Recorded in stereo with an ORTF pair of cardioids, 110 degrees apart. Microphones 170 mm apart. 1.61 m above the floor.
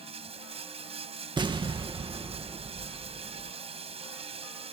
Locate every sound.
0.0 s running water: 35° right
1.4 s an explosion: 25° right